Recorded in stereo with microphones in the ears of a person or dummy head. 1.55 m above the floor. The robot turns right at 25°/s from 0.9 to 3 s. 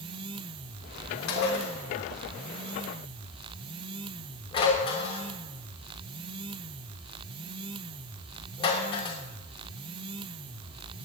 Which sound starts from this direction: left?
Dishes clattering, at 1.3 s.